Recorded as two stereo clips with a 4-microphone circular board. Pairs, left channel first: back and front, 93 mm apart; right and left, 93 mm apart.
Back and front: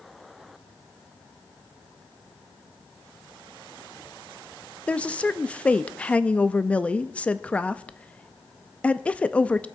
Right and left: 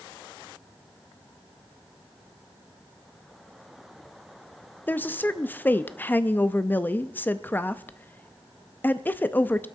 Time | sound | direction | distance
4.9 | a woman speaking | 125° right | 0.5 m